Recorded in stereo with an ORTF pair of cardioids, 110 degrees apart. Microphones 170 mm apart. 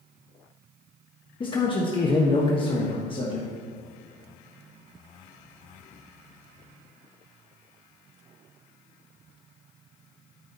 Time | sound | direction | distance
1.4 | a man speaking | 30° left | 1.3 m